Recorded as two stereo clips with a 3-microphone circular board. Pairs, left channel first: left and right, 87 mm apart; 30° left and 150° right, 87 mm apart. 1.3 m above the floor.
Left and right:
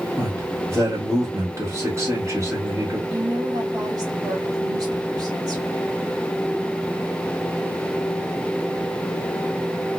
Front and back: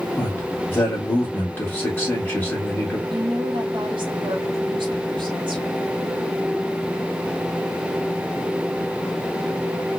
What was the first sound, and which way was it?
A man speaking, 35° right.